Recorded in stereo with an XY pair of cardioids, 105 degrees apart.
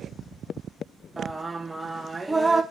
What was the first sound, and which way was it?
Singing, 15° right.